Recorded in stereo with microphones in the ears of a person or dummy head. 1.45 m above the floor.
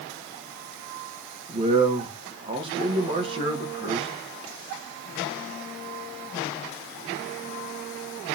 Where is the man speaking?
30° right (ahead or behind), 1.9 m.